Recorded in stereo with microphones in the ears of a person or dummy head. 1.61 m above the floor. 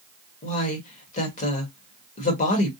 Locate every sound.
0.4 s a woman speaking: 35° left (ahead or behind), 1.5 m